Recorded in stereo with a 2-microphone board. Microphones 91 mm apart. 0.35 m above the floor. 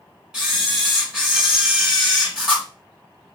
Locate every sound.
0.3 s a camera shutter: 5° right (ahead or behind), 1.8 m